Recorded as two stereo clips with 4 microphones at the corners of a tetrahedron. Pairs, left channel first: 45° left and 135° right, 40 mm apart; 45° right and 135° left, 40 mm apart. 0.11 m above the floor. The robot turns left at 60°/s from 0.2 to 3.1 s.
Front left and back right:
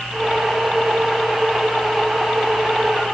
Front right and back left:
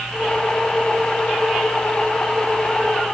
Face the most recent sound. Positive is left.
No sound to turn to.